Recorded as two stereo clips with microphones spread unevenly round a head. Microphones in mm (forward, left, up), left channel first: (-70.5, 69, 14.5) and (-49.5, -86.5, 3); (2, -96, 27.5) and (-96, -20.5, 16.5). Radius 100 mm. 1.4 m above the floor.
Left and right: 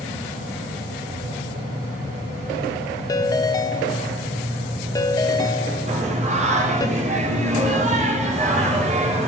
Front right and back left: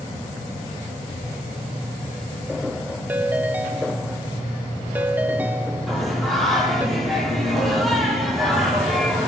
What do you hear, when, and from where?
3.1 s a ringtone: 65° left, 0.6 m
5.9 s singing: 125° right, 4.5 m